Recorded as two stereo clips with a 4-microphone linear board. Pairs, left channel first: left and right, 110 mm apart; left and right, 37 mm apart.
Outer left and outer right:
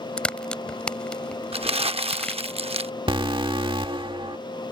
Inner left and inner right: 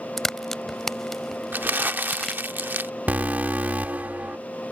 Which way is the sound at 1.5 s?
60° right (ahead or behind).